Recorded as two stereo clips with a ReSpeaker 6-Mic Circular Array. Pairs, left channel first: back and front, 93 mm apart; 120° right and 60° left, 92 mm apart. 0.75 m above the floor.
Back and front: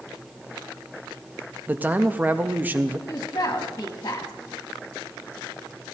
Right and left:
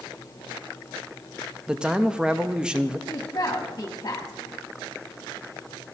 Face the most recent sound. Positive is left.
turn(degrees=-150)